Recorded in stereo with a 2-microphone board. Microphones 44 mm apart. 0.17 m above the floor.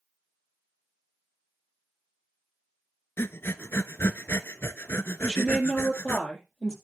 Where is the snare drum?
No snare drum in this recording.